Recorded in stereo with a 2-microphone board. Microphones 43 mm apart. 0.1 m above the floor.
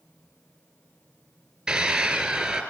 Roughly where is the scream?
Centre.